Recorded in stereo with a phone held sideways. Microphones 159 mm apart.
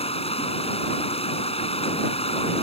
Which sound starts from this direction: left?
Running water, at 0.0 s.